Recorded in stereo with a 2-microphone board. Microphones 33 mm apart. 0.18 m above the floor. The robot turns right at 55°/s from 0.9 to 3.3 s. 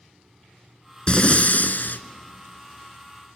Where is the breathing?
35° left, 0.5 m; by 2.0 s 85° left, 0.5 m.